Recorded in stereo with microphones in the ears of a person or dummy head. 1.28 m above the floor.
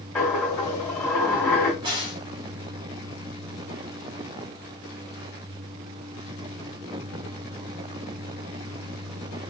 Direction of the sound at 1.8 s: 20° right (ahead or behind).